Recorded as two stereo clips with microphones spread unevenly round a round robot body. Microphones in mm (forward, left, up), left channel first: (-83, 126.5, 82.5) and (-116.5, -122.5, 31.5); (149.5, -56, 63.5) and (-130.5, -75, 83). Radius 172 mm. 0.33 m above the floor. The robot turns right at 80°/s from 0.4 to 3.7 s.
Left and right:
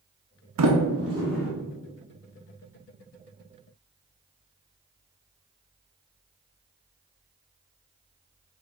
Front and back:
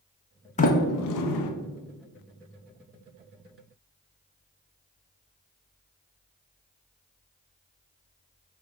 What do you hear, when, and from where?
0.6 s a sliding door: 65° right, 0.6 m; by 1.5 s 10° left, 0.6 m